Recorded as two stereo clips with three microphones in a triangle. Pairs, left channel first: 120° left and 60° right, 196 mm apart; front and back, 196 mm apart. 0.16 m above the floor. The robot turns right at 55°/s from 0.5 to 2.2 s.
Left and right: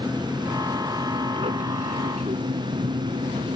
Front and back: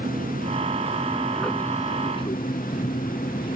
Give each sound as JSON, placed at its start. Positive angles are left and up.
{"t": 0.0, "sound": "an aircraft", "azimuth_deg": -140}